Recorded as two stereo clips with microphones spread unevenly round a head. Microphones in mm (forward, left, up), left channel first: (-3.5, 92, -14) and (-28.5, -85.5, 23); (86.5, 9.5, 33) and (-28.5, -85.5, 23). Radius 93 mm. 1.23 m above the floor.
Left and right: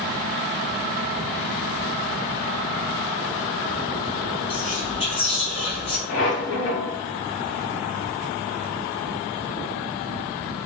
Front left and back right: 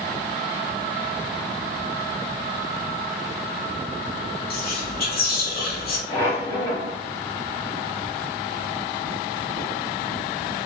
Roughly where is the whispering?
Ahead left.